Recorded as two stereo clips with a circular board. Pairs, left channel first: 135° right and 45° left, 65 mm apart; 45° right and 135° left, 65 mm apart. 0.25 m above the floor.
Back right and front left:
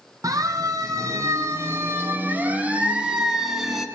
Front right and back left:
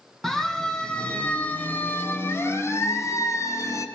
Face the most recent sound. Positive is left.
turn(degrees=-45)